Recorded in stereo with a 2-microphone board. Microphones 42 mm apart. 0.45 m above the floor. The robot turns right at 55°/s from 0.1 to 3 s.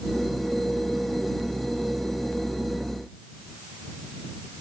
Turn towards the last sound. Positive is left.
No sound to turn to.